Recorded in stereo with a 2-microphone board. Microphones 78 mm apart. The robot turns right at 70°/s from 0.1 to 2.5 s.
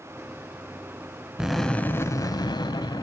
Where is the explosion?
10° right, 0.6 m; by 3.0 s 70° left, 0.6 m.